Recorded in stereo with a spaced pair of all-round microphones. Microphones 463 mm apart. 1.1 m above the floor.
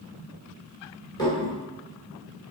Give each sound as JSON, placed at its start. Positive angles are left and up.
{"t": 1.2, "sound": "dishes clattering", "side_deg": 10, "distance_m": 2.5}